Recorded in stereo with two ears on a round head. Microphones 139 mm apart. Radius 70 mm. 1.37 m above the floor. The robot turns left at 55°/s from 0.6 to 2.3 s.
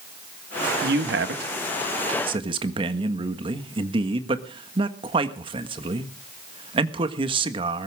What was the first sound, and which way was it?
A man speaking, 65° right.